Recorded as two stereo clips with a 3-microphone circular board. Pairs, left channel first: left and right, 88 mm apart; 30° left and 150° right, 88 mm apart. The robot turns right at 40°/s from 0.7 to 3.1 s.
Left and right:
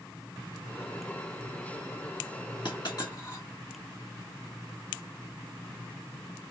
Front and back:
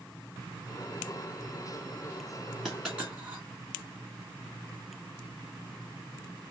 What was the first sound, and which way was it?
A dropped coin, 120° left.